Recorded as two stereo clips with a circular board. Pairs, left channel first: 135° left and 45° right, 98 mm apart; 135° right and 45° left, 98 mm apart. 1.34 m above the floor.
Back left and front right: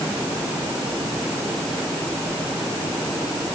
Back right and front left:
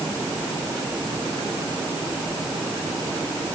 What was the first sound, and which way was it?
Only background noise.